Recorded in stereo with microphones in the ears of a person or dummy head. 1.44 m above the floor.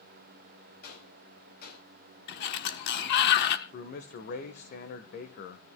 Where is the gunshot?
55° left (ahead or behind), 7.5 m.